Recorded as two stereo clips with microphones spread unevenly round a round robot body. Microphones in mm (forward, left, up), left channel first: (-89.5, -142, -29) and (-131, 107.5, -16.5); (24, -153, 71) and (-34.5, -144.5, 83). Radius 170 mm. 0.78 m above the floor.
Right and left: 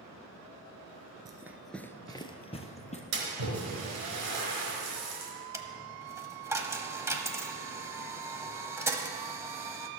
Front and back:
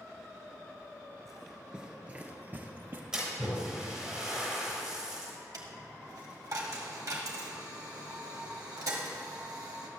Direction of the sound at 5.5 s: Straight behind.